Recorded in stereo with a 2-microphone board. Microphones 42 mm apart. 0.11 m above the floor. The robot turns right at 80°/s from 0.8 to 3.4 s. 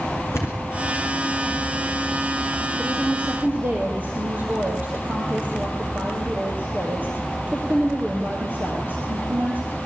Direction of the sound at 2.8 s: Straight behind.